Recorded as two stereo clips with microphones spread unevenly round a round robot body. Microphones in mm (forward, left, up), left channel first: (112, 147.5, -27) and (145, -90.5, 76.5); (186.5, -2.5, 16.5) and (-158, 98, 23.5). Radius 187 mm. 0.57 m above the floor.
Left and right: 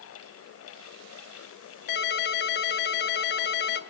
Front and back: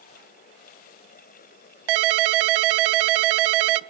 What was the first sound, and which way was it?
A ringtone, 140° left.